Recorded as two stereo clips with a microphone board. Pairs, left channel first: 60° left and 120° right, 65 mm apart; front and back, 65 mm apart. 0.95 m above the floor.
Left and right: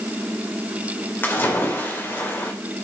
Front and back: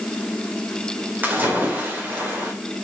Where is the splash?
120° left, 2.5 m.